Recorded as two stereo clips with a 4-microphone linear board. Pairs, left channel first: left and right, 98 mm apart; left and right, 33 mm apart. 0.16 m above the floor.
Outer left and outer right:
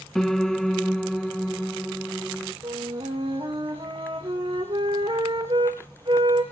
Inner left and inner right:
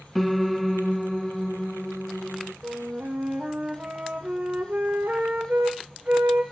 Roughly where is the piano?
Centre.